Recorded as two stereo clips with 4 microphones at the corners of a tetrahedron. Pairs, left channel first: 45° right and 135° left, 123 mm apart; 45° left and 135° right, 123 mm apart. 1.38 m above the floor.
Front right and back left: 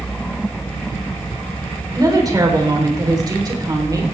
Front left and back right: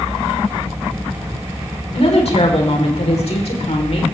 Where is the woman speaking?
75° left, 4 m.